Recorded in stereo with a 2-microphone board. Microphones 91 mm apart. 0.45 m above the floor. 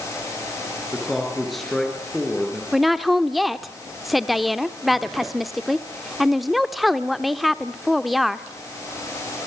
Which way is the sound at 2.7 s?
Centre (ahead or behind).